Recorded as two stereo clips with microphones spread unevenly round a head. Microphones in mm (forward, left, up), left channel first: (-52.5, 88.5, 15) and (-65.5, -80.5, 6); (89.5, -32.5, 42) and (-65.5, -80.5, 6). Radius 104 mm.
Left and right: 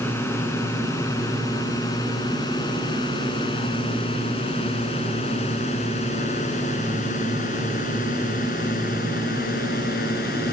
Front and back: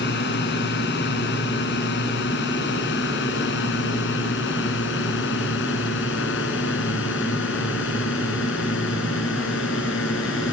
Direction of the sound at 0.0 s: 5° left.